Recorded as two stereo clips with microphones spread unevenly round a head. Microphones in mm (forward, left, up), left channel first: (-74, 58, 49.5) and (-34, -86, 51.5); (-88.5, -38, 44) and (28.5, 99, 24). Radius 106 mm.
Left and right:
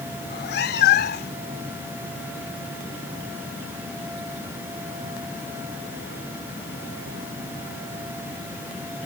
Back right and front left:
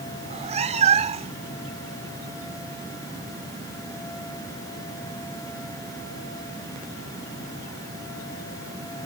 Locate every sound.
0.2 s a cat meowing: 105° left